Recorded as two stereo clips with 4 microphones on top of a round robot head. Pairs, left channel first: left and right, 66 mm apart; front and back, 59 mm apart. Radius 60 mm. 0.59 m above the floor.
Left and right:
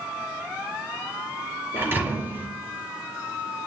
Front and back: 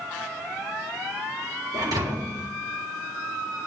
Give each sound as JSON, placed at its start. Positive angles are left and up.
{"t": 1.7, "sound": "a thud", "azimuth_deg": -150, "distance_m": 3.5}